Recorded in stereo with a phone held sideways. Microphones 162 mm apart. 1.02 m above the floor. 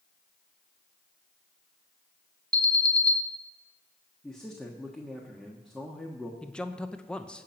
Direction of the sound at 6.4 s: 5° left (ahead or behind).